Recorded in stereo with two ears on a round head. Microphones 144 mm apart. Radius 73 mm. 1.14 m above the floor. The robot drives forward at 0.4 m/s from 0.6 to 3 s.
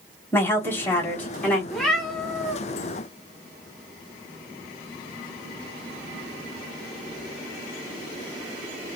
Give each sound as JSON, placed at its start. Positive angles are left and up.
{"t": 0.3, "sound": "a woman speaking", "side_deg": 15, "distance_m": 1.0}
{"t": 1.7, "sound": "a cat meowing", "side_deg": 5, "distance_m": 0.8}